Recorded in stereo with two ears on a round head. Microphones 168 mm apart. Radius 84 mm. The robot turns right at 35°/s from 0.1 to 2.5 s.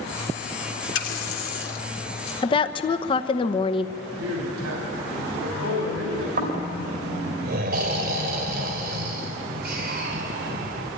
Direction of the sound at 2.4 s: 25° left (ahead or behind).